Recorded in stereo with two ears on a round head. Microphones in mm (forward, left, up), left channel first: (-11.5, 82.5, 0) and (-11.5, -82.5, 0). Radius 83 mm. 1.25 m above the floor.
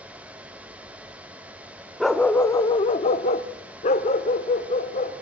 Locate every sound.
2.0 s a dog barking: centre (ahead or behind), 0.9 m; by 5.1 s 35° left (ahead or behind), 2.5 m